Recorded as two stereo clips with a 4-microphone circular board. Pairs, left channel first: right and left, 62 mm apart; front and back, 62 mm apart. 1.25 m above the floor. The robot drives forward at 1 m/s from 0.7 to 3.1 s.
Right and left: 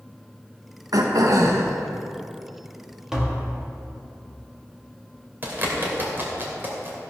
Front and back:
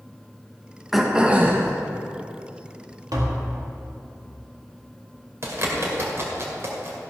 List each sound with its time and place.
0.9 s throat clearing: 95° left, 1.1 m; by 1.7 s 125° left, 1.4 m
3.1 s tapping: 170° left, 1.7 m
5.4 s a bird: 145° left, 2.5 m